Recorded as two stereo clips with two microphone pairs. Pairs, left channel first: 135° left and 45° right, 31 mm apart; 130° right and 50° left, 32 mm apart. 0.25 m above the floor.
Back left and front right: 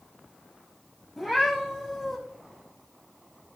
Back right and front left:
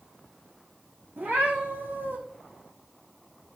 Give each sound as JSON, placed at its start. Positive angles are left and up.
{"t": 1.2, "sound": "a cat meowing", "azimuth_deg": 40, "distance_m": 4.0}